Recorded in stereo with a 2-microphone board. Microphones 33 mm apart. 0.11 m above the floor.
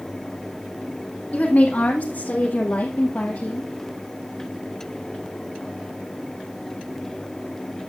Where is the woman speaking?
50° left (ahead or behind), 4 m; by 3.7 s 65° left (ahead or behind), 2.5 m.